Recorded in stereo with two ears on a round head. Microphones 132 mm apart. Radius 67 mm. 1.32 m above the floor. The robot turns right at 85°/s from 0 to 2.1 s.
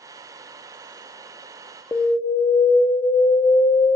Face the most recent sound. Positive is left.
turn(degrees=30)  # may be behind; listen again after turning